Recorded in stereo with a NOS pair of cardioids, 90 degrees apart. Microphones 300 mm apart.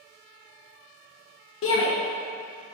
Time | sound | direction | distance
1.6 | a shout | 50° left | 1.0 m